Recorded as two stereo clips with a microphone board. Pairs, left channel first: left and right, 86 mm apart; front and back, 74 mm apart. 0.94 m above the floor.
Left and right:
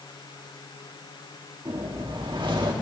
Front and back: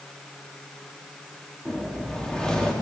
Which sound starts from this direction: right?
A whoosh, at 1.6 s.